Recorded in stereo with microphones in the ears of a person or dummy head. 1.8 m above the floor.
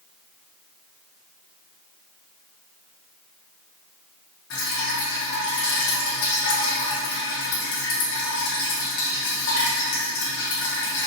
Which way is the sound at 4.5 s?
60° left (ahead or behind).